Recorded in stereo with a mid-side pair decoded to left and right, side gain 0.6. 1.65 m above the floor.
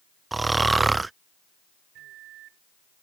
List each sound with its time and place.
0.3 s snoring: 20° right
1.9 s a microwave: 65° right